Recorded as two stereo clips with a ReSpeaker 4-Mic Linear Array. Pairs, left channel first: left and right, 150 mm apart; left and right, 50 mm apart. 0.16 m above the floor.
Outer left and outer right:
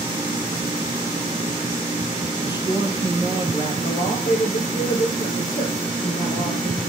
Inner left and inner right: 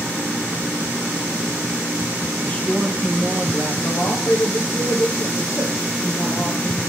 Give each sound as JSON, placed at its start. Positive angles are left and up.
{"t": 2.4, "sound": "a man speaking", "side_deg": 30, "distance_m": 5.5}
{"t": 3.8, "sound": "a man speaking", "side_deg": 70, "distance_m": 6.5}